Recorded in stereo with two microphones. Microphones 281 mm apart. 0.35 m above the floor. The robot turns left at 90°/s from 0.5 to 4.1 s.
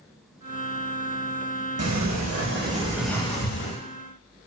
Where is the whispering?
No whispering in this recording.